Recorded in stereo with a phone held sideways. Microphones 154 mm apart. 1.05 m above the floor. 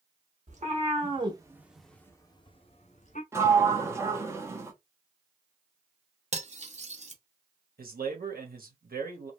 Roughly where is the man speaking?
Right.